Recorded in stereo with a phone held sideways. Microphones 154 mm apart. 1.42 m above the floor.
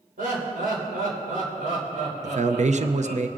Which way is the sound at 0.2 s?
85° right.